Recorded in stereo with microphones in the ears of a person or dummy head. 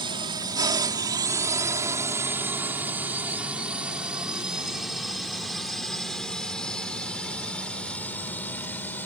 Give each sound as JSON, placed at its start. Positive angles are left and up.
{"t": 0.0, "sound": "a drone", "side_deg": -25}